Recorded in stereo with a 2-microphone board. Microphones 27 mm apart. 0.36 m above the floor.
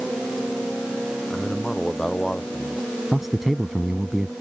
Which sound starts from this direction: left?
A man speaking, at 1.3 s.